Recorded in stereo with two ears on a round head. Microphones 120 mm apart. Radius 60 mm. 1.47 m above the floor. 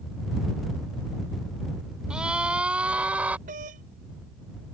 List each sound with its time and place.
2.1 s a scream: 5° right (ahead or behind); by 3.4 s 10° right (ahead or behind)
3.5 s a doorbell: 70° right (ahead or behind)